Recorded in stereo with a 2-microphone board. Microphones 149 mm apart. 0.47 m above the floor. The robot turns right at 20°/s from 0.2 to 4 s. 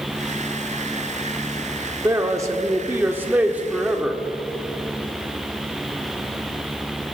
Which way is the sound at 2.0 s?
25° right (ahead or behind).